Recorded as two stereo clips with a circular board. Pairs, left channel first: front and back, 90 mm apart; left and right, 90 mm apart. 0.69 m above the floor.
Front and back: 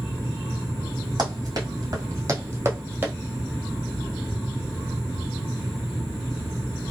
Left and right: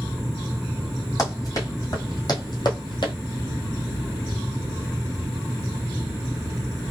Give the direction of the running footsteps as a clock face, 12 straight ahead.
7 o'clock.